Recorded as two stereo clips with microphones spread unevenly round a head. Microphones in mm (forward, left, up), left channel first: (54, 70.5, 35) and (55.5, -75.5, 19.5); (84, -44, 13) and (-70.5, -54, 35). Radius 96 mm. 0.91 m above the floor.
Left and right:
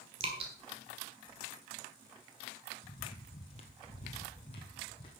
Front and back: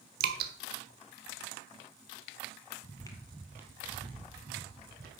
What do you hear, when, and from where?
0.2 s dripping: 155° right, 1.3 m
2.8 s footsteps: 60° left, 1.1 m; by 5.1 s 155° left, 2 m